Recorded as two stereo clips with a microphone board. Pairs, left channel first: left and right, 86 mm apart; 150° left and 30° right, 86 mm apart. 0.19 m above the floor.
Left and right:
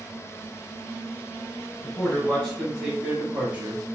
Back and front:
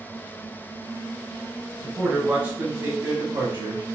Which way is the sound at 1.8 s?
55° left.